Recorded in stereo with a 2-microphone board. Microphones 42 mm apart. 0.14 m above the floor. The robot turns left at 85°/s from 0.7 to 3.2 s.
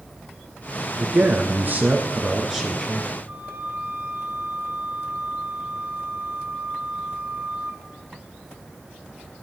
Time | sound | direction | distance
1.0 | a man speaking | 30° right | 1.6 m
3.3 | a flute | 50° right (ahead or behind) | 1.9 m